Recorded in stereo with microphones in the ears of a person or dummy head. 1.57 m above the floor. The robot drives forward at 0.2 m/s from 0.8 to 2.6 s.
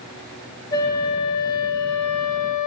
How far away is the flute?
About 0.7 m.